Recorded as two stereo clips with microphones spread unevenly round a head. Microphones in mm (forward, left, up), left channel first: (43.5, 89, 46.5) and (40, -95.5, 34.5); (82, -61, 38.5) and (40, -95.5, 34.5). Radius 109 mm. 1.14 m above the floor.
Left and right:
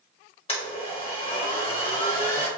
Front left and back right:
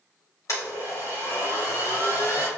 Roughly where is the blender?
Ahead left.